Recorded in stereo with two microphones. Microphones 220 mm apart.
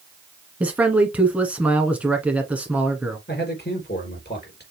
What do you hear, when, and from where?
0.6 s a man speaking: 5° right (ahead or behind), 1.6 m
3.3 s a man speaking: 50° left (ahead or behind), 3.5 m